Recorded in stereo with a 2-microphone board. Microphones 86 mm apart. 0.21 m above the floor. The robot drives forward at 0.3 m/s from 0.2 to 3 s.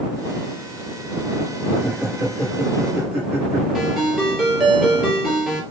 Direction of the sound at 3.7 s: Centre (ahead or behind).